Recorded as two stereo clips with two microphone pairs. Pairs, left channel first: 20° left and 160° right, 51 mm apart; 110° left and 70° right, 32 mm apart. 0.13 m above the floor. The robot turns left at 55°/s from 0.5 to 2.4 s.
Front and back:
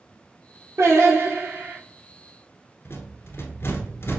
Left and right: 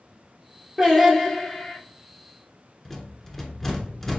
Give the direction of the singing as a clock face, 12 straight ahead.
5 o'clock.